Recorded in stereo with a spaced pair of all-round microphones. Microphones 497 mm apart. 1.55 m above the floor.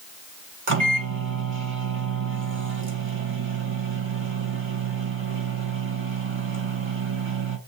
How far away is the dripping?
I don't hear dripping.